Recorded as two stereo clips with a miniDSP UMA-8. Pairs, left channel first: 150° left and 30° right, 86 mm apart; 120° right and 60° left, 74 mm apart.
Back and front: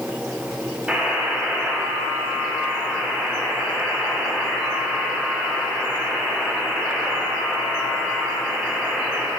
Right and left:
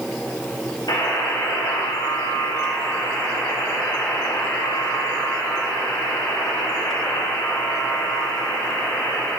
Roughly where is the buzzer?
Right.